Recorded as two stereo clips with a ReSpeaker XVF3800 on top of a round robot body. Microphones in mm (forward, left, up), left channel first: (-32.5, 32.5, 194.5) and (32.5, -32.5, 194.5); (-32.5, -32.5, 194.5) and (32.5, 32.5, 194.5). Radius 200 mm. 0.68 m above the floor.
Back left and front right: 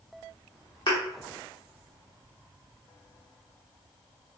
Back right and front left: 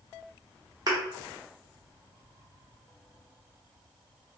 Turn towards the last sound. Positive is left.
turn(degrees=95)